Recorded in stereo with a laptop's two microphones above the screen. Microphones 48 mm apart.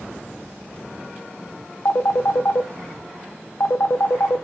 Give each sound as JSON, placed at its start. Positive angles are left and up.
{"t": 1.9, "sound": "a phone ringing", "side_deg": 55, "distance_m": 0.5}